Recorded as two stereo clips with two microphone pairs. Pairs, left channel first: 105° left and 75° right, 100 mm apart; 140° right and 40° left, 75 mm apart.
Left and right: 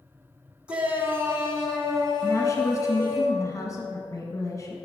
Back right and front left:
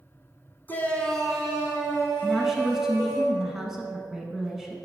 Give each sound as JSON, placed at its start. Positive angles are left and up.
{"t": 0.7, "sound": "a shout", "azimuth_deg": -140, "distance_m": 1.1}
{"t": 2.2, "sound": "a woman speaking", "azimuth_deg": 120, "distance_m": 1.3}